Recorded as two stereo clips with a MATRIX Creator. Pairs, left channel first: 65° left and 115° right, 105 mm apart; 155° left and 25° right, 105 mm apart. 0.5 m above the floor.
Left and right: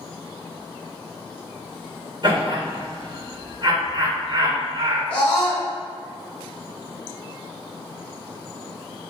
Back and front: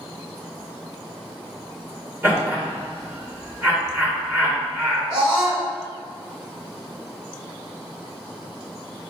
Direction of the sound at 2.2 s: 85° right.